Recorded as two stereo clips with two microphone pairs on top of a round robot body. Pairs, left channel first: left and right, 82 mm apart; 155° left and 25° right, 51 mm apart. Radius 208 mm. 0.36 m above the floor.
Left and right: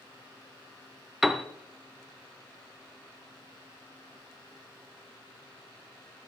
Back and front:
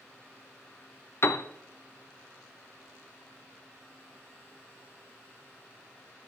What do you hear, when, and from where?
1.2 s a piano: straight behind, 0.6 m